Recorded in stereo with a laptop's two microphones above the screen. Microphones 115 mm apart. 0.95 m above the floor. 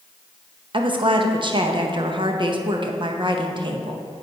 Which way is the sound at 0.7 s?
45° right (ahead or behind).